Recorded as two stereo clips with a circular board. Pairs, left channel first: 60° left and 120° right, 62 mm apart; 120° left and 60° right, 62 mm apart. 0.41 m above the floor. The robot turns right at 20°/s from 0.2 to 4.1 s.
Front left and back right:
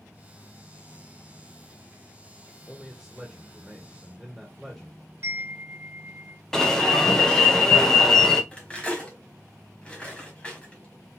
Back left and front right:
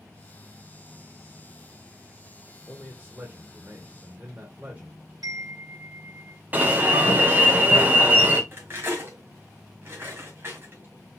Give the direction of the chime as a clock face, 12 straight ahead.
2 o'clock.